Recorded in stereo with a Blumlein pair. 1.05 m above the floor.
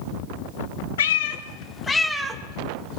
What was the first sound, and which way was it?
A cat meowing, 60° left.